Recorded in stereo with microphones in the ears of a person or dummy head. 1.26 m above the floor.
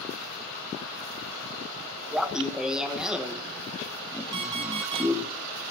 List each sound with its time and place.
2.1 s laughter: centre (ahead or behind), 1.1 m
4.3 s an alarm clock: 25° right (ahead or behind), 1.5 m